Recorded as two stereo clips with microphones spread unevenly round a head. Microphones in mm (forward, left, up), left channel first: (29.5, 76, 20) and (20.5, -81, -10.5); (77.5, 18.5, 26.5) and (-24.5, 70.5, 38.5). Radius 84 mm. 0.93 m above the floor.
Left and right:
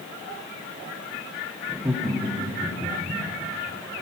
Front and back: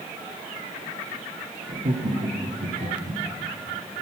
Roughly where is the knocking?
I don't hear knocking.